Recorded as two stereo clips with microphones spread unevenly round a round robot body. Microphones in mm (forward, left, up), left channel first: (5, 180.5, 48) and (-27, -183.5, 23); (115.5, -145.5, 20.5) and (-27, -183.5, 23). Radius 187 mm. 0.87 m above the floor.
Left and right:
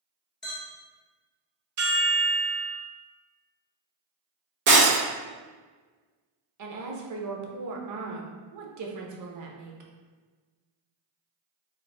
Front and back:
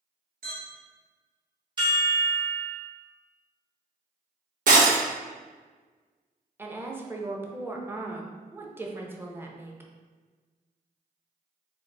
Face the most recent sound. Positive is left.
turn(degrees=-90)